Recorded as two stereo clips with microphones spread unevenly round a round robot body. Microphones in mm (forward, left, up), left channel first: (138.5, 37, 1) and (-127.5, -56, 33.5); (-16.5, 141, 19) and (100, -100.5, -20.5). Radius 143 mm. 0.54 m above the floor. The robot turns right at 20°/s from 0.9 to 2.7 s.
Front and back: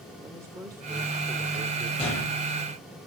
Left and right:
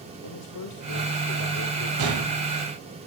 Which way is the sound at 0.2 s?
115° left.